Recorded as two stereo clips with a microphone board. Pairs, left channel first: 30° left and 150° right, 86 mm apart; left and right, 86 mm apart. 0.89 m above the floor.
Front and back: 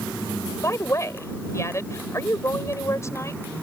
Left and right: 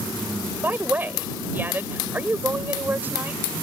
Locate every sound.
0.6 s a woman speaking: 25° right